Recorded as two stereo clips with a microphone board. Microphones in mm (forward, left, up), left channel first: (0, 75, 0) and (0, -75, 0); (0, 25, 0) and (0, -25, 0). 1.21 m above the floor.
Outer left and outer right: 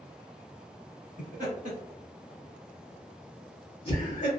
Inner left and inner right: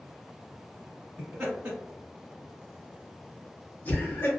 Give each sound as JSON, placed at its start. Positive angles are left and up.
{"t": 1.2, "sound": "laughter", "side_deg": -55, "distance_m": 1.3}